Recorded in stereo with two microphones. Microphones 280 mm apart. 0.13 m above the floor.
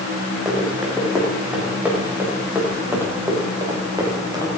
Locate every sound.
0.5 s running footsteps: centre (ahead or behind), 7.5 m; by 4.6 s 15° right (ahead or behind), 6 m